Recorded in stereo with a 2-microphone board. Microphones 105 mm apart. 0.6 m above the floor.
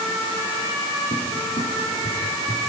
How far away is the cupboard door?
About 7.5 m.